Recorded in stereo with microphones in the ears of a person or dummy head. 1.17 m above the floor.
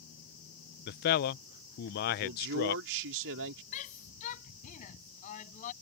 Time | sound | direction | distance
0.9 | a man speaking | 50° left (ahead or behind) | ?
2.2 | a man speaking | 65° right (ahead or behind) | ?
3.7 | a shout | 40° left (ahead or behind) | ?